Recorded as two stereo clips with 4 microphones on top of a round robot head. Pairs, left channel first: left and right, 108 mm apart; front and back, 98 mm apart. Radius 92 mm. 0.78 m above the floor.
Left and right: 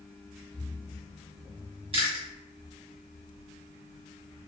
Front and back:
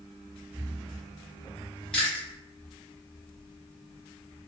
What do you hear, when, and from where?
1.9 s chewing: 80° right, 1.4 m